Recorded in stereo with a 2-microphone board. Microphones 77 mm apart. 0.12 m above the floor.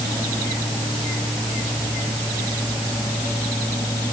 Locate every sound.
Only background noise.